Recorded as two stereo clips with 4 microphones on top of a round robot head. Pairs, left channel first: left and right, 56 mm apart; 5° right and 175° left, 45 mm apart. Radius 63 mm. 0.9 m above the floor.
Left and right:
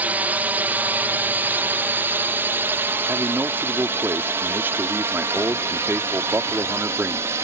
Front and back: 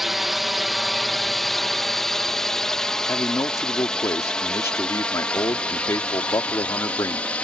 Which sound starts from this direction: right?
A drone, at 0.0 s.